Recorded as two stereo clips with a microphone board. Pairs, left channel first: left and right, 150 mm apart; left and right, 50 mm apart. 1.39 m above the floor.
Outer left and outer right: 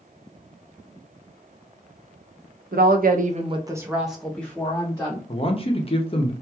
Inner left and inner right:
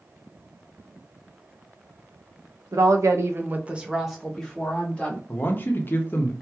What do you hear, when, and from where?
2.7 s a woman speaking: 80° right, 0.6 m; by 5.2 s 20° left (ahead or behind), 1.3 m
5.3 s a man speaking: 40° left (ahead or behind), 0.7 m